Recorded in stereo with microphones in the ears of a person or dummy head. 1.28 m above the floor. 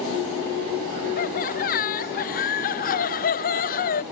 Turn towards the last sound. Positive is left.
turn(degrees=40)  # may be behind; listen again after turning